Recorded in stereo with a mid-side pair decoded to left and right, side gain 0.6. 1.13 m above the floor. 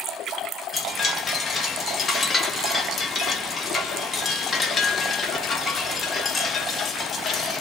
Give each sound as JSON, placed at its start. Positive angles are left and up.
{"t": 0.7, "sound": "a chime", "azimuth_deg": 30, "distance_m": 1.0}